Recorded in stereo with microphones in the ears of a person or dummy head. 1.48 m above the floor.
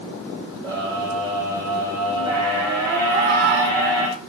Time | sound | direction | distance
0.6 | a scream | 10° right (ahead or behind) | 9 m
3.1 | a cat meowing | 50° right (ahead or behind) | 2.5 m